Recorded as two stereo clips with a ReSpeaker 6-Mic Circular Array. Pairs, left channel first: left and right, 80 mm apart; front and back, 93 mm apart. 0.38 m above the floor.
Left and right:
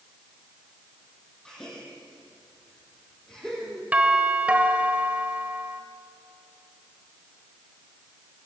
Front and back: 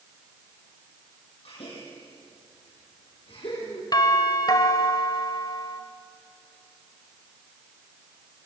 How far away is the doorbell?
About 1.9 m.